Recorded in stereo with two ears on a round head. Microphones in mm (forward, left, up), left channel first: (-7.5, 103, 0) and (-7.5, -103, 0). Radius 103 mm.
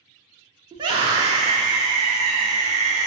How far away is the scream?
About 1.1 m.